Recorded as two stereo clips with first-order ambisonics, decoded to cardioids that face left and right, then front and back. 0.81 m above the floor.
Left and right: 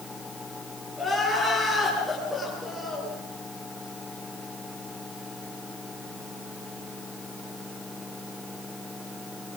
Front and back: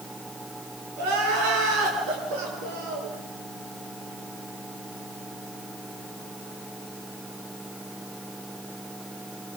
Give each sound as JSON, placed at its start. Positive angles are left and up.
{"t": 1.0, "sound": "crying", "azimuth_deg": 175, "distance_m": 8.5}